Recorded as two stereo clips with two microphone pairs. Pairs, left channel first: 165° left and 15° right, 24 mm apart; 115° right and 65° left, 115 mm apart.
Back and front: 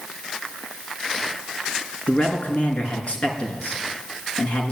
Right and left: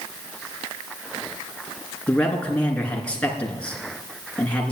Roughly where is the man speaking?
Behind.